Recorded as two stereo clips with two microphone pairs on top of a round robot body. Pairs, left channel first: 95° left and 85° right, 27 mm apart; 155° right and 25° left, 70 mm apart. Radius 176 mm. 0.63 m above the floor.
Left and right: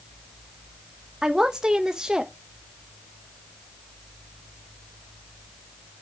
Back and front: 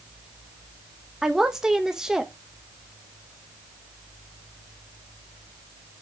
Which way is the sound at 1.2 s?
50° right.